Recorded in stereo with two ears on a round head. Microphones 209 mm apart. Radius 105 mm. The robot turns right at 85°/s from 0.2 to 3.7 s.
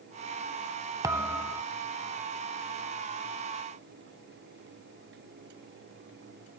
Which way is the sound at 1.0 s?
15° right (ahead or behind).